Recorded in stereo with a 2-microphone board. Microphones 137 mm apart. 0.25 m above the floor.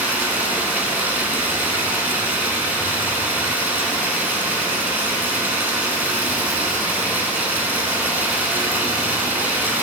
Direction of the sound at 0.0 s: 15° right (ahead or behind).